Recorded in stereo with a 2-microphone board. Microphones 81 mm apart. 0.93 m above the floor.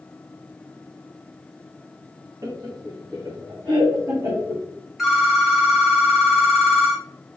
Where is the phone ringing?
5° right (ahead or behind), 1.0 m.